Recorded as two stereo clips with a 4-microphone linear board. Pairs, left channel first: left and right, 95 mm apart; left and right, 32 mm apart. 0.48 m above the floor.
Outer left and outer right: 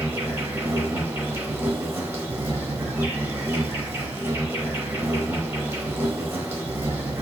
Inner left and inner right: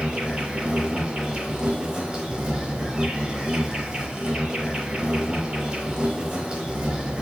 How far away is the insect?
About 0.9 m.